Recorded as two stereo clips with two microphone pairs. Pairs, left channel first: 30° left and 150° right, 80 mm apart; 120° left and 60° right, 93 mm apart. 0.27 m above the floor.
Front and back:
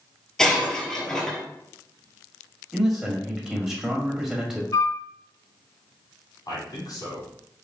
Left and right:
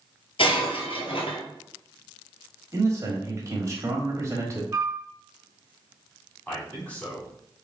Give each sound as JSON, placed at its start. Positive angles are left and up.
{"t": 0.4, "sound": "breaking glass", "azimuth_deg": 110, "distance_m": 1.1}
{"t": 2.7, "sound": "a man speaking", "azimuth_deg": -65, "distance_m": 1.1}
{"t": 4.7, "sound": "a flute", "azimuth_deg": -5, "distance_m": 0.6}
{"t": 6.5, "sound": "a man speaking", "azimuth_deg": 50, "distance_m": 2.0}